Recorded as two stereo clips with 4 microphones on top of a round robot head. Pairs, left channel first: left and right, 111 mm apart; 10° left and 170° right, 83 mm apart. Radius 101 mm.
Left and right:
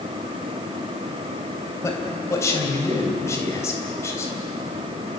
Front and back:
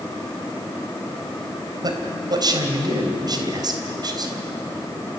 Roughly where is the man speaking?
Behind left.